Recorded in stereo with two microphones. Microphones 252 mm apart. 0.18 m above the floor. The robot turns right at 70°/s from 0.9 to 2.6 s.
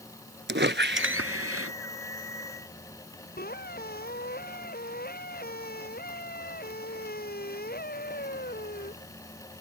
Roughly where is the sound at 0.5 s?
Behind right.